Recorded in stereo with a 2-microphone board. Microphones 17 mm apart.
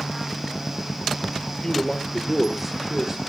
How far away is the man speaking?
About 1.5 m.